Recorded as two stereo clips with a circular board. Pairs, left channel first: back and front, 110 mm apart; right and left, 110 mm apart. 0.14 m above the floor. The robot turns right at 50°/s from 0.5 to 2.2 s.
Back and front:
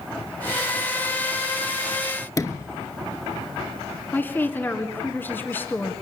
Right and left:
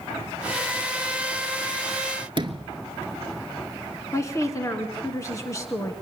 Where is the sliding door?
125° left, 0.8 m.